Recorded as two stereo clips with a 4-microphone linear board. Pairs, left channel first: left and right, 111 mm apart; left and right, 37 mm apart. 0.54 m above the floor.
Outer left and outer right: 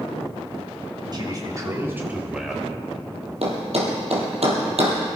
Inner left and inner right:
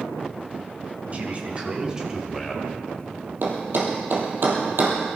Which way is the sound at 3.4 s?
65° right (ahead or behind).